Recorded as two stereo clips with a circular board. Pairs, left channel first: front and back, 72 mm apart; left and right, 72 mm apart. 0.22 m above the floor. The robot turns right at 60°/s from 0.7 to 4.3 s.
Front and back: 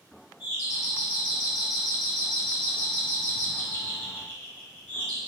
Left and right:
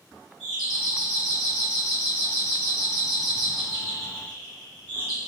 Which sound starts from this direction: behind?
A doorbell, at 0.4 s.